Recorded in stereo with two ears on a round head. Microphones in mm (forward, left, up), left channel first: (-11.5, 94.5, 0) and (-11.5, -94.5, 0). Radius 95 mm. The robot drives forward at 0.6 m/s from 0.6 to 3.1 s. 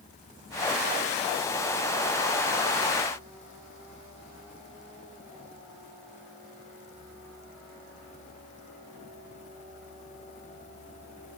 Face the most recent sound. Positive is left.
No sound to turn to.